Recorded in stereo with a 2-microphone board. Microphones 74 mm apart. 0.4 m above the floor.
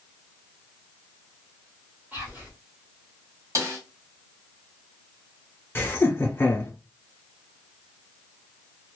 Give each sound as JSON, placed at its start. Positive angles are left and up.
{"t": 2.1, "sound": "whispering", "side_deg": -25, "distance_m": 1.5}
{"t": 3.5, "sound": "a snare drum", "side_deg": -45, "distance_m": 1.0}
{"t": 5.8, "sound": "laughter", "side_deg": 30, "distance_m": 1.0}